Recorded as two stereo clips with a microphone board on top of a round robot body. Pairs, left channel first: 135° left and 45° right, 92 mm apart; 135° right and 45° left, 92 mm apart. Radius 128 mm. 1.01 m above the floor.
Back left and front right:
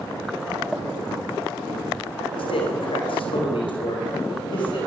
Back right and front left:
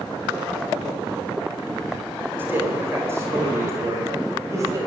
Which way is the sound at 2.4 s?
115° left.